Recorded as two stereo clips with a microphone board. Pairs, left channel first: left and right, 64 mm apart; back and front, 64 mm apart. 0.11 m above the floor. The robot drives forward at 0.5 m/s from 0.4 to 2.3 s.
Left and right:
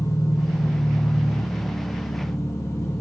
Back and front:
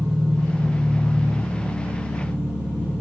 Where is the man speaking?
No man speaking in this recording.